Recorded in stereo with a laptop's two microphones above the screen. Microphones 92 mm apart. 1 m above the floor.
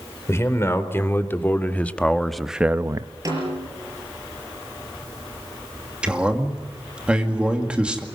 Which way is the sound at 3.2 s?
35° right (ahead or behind).